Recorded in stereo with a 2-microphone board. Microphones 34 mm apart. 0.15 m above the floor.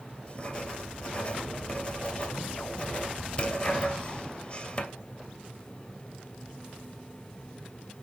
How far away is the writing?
About 2 m.